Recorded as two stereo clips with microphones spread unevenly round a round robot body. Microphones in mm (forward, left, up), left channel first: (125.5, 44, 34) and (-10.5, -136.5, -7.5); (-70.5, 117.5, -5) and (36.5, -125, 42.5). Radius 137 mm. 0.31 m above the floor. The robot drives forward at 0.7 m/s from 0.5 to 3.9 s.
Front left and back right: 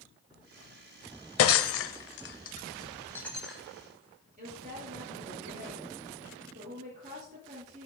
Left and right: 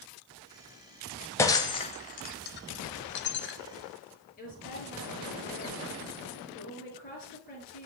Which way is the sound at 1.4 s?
45° left.